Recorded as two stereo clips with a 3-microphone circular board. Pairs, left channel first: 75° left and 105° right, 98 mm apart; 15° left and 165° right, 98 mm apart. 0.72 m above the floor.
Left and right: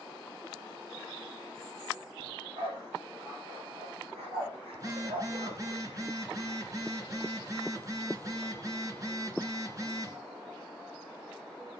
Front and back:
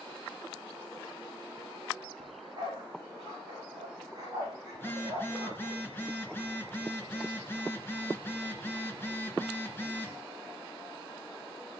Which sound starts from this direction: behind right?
A dog barking, at 2.2 s.